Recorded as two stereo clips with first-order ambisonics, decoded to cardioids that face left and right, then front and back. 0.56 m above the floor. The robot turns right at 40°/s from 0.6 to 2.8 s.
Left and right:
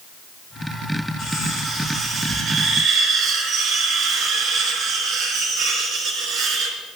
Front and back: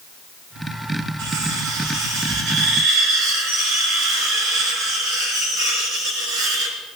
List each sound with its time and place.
1.2 s cutlery clinking: 150° left, 4.5 m; by 6.8 s 145° right, 4.5 m